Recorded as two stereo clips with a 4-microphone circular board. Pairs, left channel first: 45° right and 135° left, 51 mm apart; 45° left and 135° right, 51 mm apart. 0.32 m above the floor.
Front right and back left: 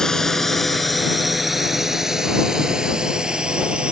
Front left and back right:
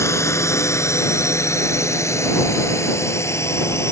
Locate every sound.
0.0 s a drone: 35° left; by 3.9 s 65° left